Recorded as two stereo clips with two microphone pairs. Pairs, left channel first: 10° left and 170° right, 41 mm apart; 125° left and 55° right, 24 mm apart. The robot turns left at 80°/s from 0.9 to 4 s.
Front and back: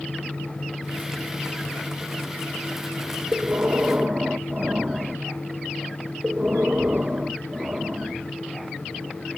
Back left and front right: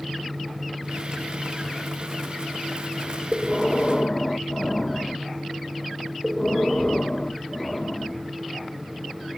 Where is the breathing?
170° right, 0.7 m; by 8.3 s 135° left, 0.7 m.